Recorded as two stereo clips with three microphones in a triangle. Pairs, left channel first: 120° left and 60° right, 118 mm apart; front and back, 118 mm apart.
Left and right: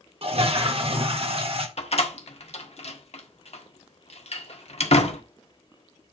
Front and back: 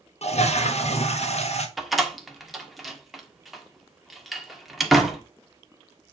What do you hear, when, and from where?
0.2 s a toilet flushing: 25° right, 1.3 m
1.8 s a door slam: 90° left, 1.4 m